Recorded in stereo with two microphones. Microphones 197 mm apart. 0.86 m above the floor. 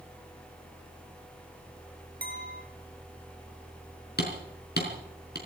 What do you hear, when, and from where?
2.2 s a clink: 50° right (ahead or behind), 2.5 m
4.2 s hammering: 60° left (ahead or behind), 4.5 m